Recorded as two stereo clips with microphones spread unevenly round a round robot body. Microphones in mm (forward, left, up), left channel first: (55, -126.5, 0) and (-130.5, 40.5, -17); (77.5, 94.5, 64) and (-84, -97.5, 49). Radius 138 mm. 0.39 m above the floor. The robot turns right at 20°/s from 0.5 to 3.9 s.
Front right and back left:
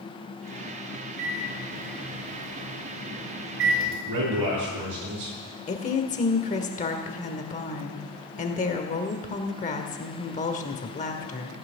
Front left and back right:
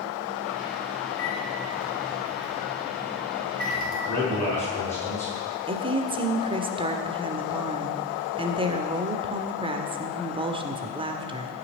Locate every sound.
1.2 s a microwave: 125° left, 5 m; by 4.0 s 175° left, 5 m
4.1 s a man speaking: 130° left, 6.5 m
5.7 s a woman speaking: 85° right, 1.6 m